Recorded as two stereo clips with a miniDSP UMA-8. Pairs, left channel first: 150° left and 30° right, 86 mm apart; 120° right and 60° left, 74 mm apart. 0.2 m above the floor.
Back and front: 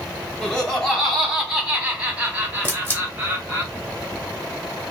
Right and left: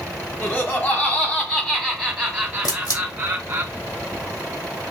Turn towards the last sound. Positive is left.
turn(degrees=-150)